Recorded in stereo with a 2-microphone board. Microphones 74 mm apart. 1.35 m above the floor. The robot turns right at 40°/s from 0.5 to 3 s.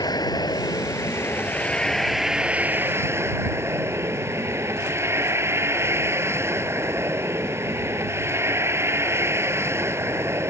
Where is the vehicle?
115° left; by 10.5 s 145° right.